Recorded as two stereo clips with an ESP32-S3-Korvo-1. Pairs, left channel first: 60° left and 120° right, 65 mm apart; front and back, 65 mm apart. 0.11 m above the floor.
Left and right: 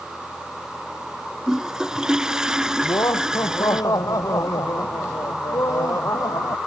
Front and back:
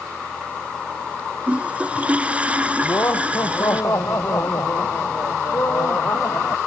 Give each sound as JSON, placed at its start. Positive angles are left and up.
{"t": 1.5, "sound": "a toilet flushing", "azimuth_deg": 180}
{"t": 2.8, "sound": "laughter", "azimuth_deg": 35}